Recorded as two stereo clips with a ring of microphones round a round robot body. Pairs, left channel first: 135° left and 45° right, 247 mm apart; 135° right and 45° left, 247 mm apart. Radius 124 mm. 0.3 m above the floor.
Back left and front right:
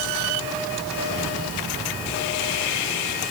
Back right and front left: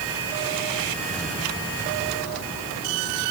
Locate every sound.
Only background noise.